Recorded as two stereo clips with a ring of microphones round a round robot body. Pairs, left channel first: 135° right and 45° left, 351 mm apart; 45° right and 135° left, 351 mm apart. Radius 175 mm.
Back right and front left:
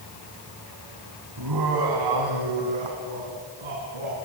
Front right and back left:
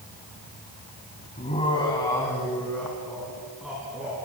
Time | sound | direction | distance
1.4 | laughter | 25° left | 3 m